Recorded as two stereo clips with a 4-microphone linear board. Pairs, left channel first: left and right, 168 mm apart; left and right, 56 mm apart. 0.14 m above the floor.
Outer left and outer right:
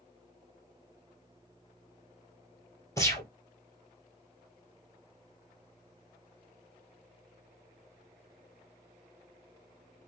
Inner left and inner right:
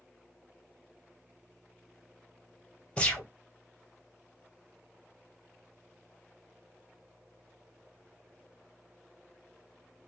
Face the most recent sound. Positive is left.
turn(degrees=20)  # may be behind; listen again after turning